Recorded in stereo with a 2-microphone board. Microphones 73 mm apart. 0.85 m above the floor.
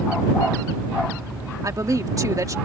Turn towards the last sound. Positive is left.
turn(degrees=-50)  # may be behind; listen again after turning